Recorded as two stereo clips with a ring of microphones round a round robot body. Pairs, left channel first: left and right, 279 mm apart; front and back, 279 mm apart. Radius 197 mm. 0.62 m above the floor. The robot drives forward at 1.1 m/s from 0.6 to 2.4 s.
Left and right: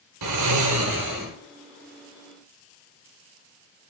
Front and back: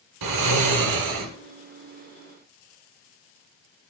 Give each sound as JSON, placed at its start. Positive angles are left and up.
{"t": 0.2, "sound": "snoring", "azimuth_deg": -135, "distance_m": 0.8}